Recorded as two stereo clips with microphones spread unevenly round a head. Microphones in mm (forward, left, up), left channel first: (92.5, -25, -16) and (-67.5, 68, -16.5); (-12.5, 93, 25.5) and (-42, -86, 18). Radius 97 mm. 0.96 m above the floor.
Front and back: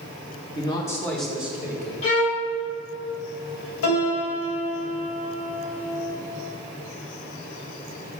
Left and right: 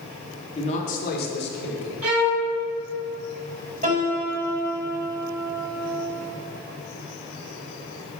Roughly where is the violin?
Right.